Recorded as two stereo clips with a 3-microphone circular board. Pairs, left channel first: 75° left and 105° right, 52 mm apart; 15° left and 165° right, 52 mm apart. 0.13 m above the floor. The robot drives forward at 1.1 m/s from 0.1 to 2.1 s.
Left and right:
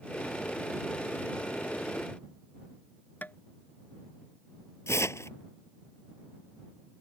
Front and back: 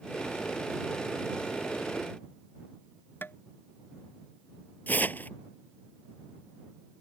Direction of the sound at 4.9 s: 65° left.